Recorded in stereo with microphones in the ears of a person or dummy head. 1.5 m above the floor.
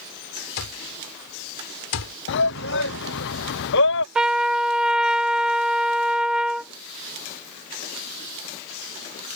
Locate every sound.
0.6 s an alarm clock: 80° left
2.3 s a shout: 65° left (ahead or behind)
4.2 s a trumpet: 5° right (ahead or behind)